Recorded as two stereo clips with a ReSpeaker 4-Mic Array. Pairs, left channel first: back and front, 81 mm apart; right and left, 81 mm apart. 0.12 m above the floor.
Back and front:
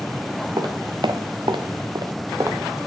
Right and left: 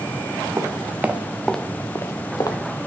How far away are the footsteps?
About 1.2 m.